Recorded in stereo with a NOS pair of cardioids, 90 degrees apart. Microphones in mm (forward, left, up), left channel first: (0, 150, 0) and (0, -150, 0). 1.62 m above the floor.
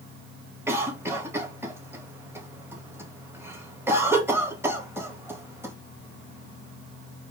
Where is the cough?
10° right, 1.8 m.